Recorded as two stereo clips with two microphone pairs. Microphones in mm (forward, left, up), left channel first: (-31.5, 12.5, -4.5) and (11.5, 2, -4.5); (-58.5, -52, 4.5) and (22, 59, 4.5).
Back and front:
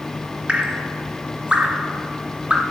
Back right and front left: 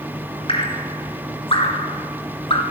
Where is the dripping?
80° right, 2.5 m.